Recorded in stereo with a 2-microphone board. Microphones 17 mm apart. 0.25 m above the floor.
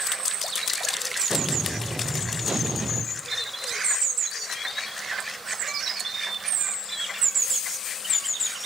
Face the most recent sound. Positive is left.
turn(degrees=-60)  # may be behind; listen again after turning